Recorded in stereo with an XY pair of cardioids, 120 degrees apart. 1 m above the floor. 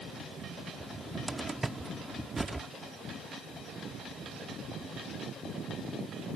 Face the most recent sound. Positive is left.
turn(degrees=-15)